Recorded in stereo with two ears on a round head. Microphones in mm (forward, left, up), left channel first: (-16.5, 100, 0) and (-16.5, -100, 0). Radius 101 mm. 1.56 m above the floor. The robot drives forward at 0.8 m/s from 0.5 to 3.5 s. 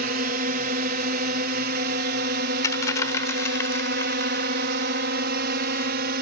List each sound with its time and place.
0.0 s a drone: 40° right (ahead or behind); by 6.2 s 45° right (ahead or behind)
2.6 s a dropped coin: 15° left (ahead or behind)